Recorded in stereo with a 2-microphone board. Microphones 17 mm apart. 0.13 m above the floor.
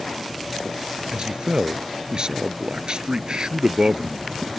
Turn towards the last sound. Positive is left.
turn(degrees=-50)  # may be behind; listen again after turning